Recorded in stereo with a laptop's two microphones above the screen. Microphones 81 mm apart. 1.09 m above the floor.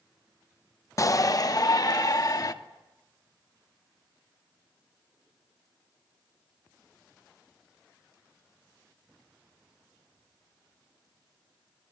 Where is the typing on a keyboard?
No typing on a keyboard in this recording.